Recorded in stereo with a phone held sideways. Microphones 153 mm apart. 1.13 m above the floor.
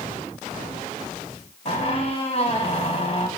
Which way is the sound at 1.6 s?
40° left (ahead or behind).